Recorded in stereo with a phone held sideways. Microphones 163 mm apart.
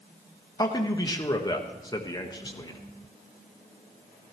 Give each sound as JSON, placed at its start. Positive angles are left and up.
{"t": 0.6, "sound": "a man speaking", "side_deg": 25, "distance_m": 1.2}